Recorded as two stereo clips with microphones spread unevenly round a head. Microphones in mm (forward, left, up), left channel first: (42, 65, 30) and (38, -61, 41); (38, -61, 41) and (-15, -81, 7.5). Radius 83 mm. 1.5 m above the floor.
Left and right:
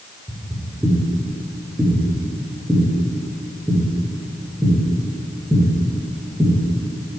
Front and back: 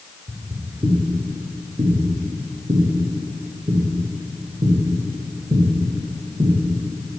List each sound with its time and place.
0.3 s footsteps: 85° right, 1.5 m; by 6.5 s 170° right, 3.5 m